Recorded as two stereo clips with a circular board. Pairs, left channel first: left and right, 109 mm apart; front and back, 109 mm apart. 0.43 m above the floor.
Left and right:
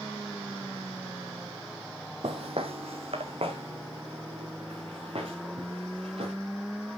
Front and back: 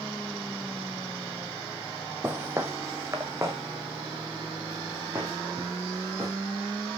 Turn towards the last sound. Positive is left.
turn(degrees=-120)